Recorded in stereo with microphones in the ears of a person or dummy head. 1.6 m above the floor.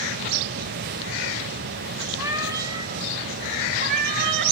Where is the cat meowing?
15° right (ahead or behind), 3.5 m; by 4.5 s 60° right (ahead or behind), 2.5 m.